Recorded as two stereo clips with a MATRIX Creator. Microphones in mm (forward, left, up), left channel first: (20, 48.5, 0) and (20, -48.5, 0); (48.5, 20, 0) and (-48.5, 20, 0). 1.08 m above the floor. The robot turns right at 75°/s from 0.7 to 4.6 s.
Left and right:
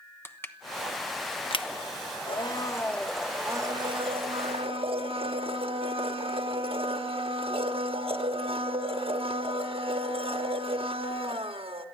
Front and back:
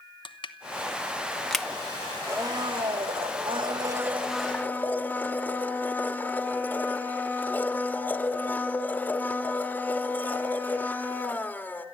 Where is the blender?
115° left, 1.4 m; by 11.8 s 70° right, 1.4 m.